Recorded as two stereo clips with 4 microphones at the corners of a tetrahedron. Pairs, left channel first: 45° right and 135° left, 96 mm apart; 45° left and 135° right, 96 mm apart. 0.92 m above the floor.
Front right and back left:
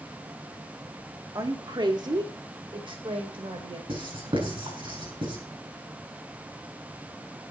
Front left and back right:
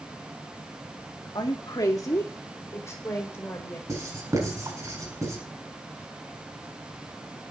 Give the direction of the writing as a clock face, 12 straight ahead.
6 o'clock.